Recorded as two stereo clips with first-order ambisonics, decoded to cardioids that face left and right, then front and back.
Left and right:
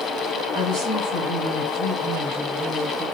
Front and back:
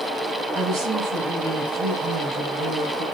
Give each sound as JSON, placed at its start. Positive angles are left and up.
{"t": 0.5, "sound": "a woman speaking", "azimuth_deg": -115, "distance_m": 3.0}